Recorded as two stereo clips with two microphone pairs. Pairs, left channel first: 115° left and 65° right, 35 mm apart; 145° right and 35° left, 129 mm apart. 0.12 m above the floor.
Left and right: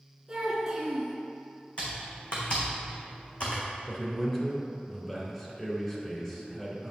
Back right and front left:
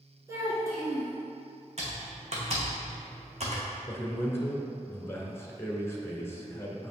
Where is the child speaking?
10° right, 1.3 m.